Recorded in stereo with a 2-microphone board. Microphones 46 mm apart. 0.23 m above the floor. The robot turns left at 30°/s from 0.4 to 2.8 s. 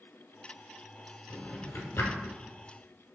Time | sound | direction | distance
1.3 | a drawer | 45° left (ahead or behind) | 0.7 m